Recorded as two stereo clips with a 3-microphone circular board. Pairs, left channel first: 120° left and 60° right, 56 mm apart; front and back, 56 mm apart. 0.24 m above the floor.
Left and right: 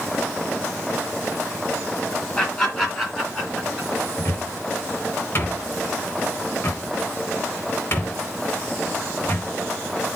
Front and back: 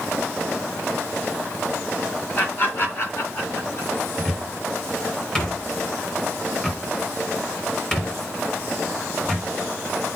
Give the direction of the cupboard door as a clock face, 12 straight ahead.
9 o'clock.